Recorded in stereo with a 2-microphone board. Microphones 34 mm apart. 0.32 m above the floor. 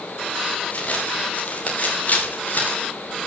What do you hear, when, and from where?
0.7 s footsteps: 40° left (ahead or behind), 8 m; by 2.9 s 55° left (ahead or behind), 6.5 m